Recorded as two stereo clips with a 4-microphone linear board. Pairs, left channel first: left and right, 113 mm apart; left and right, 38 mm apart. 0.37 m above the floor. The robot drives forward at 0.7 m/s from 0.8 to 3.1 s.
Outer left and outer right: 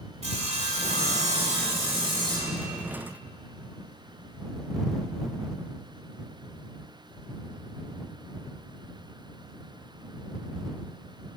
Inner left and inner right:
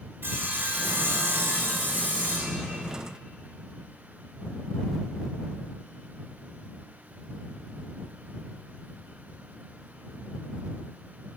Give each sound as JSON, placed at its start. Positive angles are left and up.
{"t": 0.2, "sound": "sawing", "side_deg": -70, "distance_m": 0.8}